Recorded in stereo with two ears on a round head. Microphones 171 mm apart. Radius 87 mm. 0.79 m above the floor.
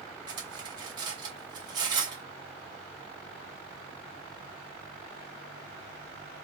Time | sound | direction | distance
0.3 | cutlery clinking | 20° right (ahead or behind) | 0.8 m